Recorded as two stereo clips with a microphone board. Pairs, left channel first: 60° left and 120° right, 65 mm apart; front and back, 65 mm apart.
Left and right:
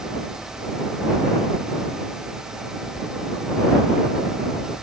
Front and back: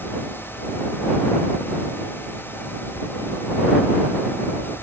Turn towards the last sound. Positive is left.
No sound to turn to.